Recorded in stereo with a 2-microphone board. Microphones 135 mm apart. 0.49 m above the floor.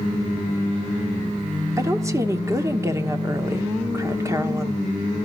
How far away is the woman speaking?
About 1.3 m.